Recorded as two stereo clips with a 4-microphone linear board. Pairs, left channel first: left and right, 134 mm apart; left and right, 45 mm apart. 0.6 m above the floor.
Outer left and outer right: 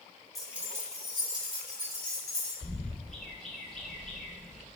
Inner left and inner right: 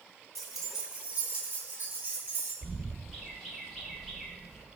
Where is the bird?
Centre (ahead or behind), 1.3 m.